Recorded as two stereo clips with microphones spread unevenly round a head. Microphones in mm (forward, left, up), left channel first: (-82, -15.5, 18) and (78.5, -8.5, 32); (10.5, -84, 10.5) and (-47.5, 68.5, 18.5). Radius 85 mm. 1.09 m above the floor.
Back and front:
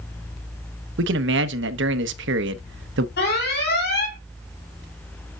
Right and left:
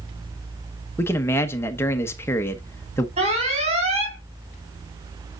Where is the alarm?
160° left, 3.5 m.